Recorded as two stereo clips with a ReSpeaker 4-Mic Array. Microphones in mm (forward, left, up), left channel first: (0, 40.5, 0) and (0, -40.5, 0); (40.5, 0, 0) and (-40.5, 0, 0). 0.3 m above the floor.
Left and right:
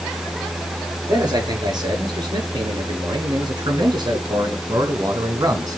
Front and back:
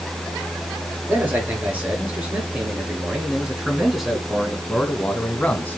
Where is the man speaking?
115° right, 5.5 m; by 5.8 s 60° right, 2.5 m.